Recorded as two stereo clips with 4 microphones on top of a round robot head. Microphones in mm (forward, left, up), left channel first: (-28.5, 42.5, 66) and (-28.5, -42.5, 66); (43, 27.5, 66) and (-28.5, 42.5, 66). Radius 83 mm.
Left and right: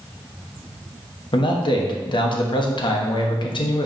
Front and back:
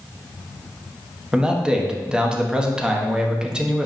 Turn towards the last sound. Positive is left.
turn(degrees=90)